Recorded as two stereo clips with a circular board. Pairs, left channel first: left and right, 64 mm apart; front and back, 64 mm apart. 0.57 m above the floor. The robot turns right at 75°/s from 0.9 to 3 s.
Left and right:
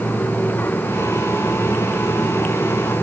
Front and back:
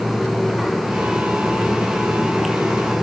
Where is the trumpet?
No trumpet in this recording.